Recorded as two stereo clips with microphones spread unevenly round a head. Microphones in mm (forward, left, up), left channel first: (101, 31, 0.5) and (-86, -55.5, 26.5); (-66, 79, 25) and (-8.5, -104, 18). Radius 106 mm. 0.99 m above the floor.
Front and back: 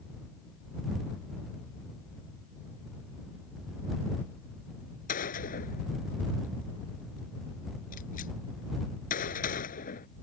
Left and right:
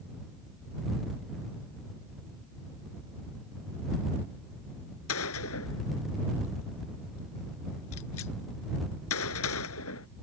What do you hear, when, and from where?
5.1 s a gunshot: 80° left